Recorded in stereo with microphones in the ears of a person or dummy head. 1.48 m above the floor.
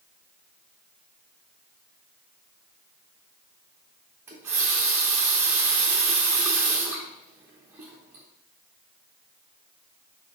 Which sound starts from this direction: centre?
A running tap, at 4.3 s.